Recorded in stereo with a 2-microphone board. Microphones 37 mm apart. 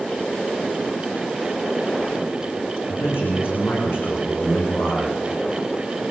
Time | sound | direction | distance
2.9 | a man speaking | 80° left | 10 m